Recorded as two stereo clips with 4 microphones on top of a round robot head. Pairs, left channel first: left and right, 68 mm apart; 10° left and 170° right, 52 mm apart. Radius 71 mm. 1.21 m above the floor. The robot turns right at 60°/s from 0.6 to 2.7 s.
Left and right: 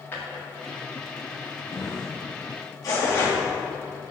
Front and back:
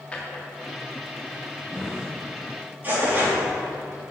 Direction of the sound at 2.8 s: 130° left.